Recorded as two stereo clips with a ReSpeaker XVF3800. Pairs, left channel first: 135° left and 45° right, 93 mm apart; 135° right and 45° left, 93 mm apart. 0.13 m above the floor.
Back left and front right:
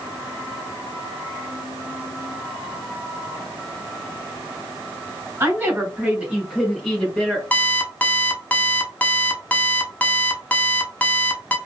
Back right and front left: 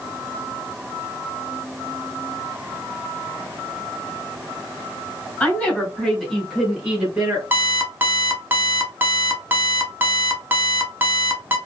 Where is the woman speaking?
75° right, 1.4 m; by 7.4 s 80° left, 1.3 m.